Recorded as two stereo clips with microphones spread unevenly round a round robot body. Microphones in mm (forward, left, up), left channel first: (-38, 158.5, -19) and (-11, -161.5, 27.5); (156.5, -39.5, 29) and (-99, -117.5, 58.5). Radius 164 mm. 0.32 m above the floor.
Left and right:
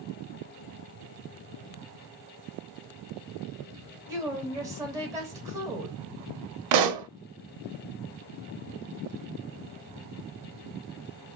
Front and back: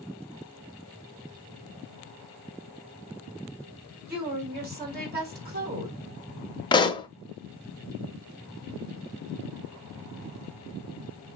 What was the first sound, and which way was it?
A woman speaking, 170° right.